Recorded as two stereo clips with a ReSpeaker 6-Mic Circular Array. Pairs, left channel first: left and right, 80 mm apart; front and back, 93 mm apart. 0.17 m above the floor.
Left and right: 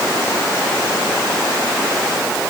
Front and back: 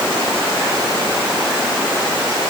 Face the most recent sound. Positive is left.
No sound to turn to.